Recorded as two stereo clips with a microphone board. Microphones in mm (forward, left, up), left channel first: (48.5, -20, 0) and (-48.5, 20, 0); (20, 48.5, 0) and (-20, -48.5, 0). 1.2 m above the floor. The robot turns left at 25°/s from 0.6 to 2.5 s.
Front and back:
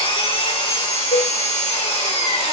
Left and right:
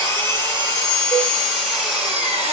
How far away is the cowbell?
About 2 m.